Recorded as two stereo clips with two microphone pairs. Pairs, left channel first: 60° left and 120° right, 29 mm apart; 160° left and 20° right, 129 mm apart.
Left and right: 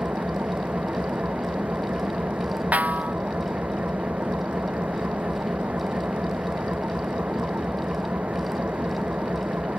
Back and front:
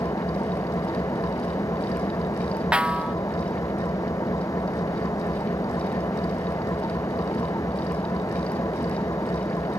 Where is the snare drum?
100° right.